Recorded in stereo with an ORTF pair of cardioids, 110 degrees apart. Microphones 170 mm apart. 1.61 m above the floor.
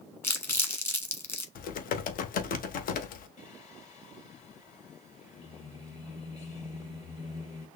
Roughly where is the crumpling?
Ahead.